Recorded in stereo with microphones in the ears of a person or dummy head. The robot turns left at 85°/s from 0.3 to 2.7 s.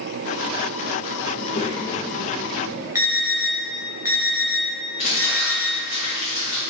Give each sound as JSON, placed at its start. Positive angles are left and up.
{"t": 1.3, "sound": "a child speaking", "azimuth_deg": 70, "distance_m": 0.8}
{"t": 3.0, "sound": "an alarm", "side_deg": -15, "distance_m": 0.7}
{"t": 5.0, "sound": "crumpling", "side_deg": 40, "distance_m": 1.1}